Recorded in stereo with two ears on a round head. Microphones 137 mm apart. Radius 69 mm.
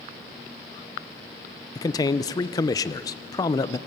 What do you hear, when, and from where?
1.8 s a man speaking: 25° left (ahead or behind), 0.6 m